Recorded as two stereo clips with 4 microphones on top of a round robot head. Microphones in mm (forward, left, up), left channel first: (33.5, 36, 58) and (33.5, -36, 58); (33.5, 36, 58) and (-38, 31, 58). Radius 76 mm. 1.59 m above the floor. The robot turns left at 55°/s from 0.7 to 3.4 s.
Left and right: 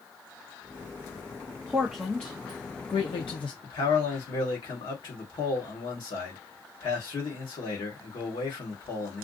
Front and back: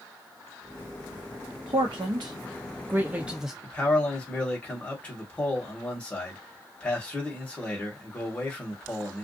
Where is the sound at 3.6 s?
75° left, 1.4 m.